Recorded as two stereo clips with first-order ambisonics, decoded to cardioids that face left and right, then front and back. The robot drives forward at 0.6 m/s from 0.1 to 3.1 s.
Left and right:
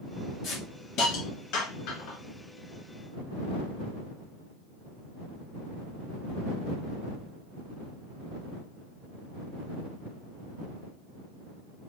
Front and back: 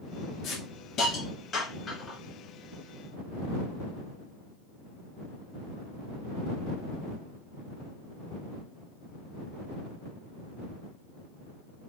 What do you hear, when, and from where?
0.4 s a hiss: 45° left, 1.9 m; by 2.2 s 80° left, 1.5 m